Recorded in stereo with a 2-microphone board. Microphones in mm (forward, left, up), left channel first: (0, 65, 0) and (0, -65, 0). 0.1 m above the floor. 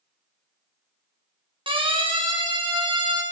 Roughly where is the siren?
Right.